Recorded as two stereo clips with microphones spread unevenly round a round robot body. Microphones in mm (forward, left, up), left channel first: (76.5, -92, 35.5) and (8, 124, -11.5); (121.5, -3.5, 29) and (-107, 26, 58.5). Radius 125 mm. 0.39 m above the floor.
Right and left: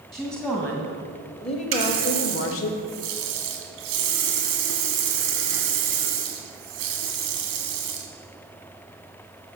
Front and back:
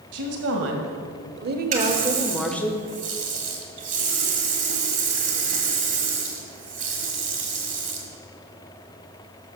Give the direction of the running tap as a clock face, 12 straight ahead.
8 o'clock.